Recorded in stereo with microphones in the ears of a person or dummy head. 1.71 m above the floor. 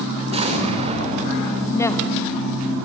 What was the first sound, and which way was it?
An explosion, 35° right (ahead or behind).